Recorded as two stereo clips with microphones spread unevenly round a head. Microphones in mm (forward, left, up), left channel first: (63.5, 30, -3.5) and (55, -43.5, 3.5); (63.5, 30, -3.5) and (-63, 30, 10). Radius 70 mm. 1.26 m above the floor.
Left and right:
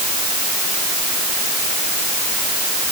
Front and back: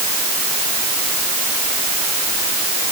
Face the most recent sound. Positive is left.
No sound to turn to.